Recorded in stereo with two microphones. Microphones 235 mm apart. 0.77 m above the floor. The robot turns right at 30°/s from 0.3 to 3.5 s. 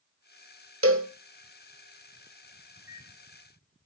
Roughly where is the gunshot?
I don't hear a gunshot.